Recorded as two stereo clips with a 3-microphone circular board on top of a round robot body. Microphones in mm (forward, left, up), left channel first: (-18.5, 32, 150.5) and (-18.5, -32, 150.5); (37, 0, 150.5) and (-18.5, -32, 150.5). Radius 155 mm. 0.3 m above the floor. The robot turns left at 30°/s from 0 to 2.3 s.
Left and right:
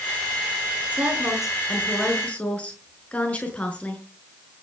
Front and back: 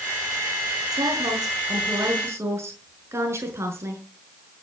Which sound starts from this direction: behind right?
A woman speaking, at 0.9 s.